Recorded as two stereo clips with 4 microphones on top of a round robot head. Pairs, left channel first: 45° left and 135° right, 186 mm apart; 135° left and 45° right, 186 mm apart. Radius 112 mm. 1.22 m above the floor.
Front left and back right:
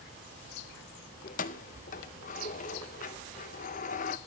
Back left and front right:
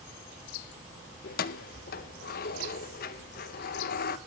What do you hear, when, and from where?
1.2 s keys jangling: 95° left, 0.6 m